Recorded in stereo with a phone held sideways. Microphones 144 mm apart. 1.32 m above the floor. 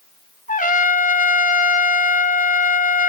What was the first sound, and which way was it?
A trumpet, 65° left (ahead or behind).